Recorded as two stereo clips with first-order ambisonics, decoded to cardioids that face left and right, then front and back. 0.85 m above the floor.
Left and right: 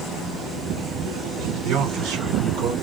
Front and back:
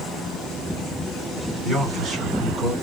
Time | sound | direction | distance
1.6 | a man speaking | 105° right | 3 m